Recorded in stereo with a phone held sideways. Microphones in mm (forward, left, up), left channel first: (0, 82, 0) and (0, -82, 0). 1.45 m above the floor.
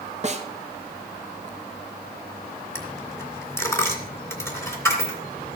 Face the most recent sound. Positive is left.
turn(degrees=15)  # may be behind; listen again after turning